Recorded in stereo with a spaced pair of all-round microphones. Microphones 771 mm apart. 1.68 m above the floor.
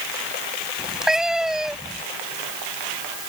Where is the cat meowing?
Centre (ahead or behind).